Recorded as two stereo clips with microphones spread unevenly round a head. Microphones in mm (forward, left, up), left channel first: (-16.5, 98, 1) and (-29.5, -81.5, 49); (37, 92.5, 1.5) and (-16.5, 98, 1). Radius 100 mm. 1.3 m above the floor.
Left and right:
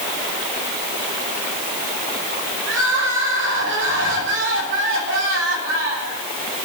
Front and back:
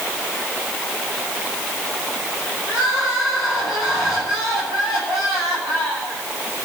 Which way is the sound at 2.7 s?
115° right.